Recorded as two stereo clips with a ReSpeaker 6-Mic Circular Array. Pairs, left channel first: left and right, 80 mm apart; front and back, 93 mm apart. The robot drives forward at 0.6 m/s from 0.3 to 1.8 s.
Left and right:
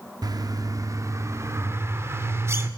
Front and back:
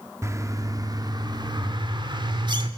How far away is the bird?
About 1.3 m.